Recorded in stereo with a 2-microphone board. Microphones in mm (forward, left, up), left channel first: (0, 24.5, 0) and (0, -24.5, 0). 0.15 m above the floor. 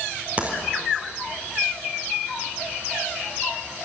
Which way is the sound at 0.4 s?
30° right (ahead or behind).